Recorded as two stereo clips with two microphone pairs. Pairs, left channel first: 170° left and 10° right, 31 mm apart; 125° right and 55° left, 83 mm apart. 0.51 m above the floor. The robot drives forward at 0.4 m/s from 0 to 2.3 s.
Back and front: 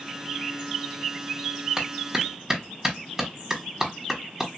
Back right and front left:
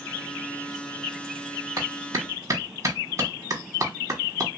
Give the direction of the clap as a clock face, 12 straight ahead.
10 o'clock.